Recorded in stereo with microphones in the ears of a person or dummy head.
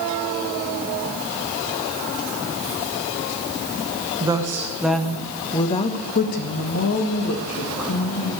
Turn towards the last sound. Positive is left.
turn(degrees=75)  # may be behind; listen again after turning